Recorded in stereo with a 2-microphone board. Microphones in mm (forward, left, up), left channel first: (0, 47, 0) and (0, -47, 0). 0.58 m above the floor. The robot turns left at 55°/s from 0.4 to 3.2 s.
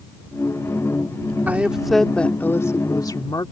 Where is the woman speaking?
155° right; by 3.5 s 110° left.